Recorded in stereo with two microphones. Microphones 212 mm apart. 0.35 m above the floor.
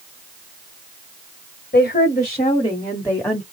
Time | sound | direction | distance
1.7 | a woman speaking | 40° left (ahead or behind) | 1.5 m